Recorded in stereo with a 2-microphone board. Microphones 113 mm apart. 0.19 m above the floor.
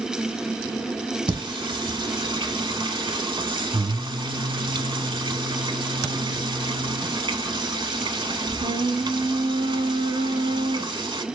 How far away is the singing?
About 0.7 m.